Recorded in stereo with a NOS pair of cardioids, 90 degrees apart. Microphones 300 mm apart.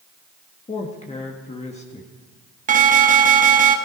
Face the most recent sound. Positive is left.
turn(degrees=-25)